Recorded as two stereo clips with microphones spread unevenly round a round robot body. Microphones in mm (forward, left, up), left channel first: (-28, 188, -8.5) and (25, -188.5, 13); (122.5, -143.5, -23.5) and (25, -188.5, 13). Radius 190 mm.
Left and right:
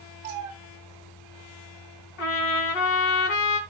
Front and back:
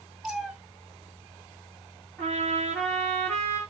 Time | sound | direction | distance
0.2 | a cat meowing | 65° right | 3 m
2.2 | a trumpet | 110° left | 3.5 m